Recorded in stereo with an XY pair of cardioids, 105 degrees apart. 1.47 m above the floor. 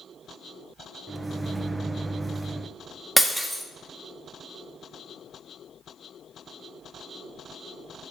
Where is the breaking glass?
5° right, 1.7 m.